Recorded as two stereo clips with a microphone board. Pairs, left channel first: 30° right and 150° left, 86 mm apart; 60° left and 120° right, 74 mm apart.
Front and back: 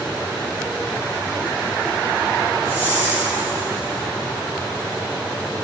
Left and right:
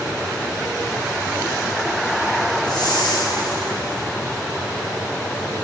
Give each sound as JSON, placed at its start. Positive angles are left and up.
{"t": 2.6, "sound": "a whoosh", "azimuth_deg": 80, "distance_m": 3.0}